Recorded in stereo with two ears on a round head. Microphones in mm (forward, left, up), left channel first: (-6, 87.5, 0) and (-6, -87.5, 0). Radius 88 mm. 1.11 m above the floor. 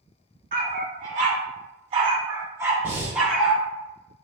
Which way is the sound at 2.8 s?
10° right (ahead or behind).